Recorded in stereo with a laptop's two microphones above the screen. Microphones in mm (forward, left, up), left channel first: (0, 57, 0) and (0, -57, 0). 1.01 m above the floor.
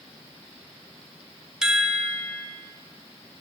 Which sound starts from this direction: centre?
A chime, at 1.6 s.